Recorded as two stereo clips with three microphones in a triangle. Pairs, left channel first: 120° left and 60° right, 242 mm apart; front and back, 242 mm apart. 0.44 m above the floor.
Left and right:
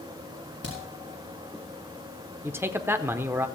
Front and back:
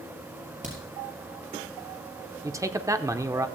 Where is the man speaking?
125° right, 0.8 m.